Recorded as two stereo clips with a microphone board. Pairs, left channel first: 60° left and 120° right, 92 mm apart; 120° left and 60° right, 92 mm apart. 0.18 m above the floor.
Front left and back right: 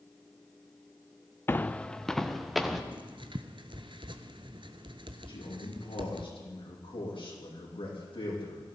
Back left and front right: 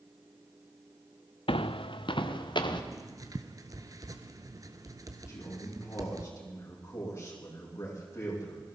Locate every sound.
1.5 s footsteps: 125° left, 0.6 m; by 2.8 s 150° left, 1.9 m
2.9 s writing: 105° right, 1.0 m
5.3 s a man speaking: 65° left, 6.5 m